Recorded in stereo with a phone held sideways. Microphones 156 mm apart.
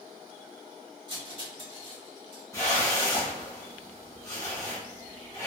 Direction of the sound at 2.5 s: 20° left (ahead or behind).